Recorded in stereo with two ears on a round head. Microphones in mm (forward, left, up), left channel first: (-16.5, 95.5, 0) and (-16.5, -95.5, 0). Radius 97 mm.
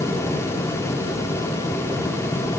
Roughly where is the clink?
I don't hear a clink.